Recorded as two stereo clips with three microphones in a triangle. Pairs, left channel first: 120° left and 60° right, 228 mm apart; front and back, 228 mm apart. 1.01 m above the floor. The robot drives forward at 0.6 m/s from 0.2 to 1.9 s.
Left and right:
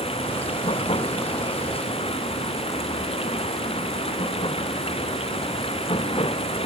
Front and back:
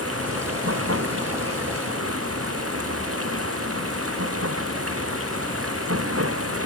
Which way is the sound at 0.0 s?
175° right.